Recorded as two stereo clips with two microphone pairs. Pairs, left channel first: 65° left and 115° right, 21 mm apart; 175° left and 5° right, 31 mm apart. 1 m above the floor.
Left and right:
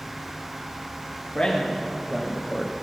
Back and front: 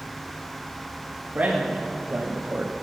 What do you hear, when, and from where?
1.4 s a man speaking: 25° left, 1.7 m; by 2.7 s straight ahead, 1.0 m